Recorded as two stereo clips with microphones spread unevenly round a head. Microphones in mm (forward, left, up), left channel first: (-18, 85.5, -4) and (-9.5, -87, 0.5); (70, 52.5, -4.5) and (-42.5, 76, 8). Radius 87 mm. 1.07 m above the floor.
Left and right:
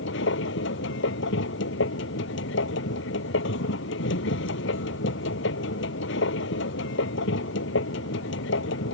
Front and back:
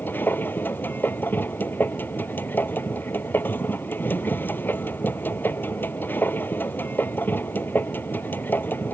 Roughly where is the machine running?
Ahead left.